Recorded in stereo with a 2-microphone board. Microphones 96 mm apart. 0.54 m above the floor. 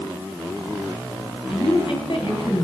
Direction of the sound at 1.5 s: 65° left (ahead or behind).